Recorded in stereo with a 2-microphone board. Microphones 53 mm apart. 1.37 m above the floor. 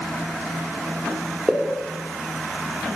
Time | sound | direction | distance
1.5 | a pop | 10° right (ahead or behind) | 4.5 m